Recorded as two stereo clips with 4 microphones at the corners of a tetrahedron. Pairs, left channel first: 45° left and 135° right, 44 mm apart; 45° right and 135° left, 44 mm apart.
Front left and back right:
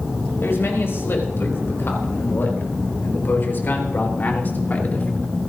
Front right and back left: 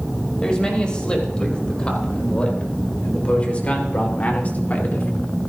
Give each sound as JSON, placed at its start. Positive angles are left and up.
{"t": 0.4, "sound": "a man speaking", "azimuth_deg": 25, "distance_m": 5.0}